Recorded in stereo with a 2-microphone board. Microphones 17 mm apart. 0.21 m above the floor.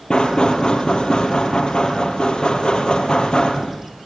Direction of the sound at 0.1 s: 70° left (ahead or behind).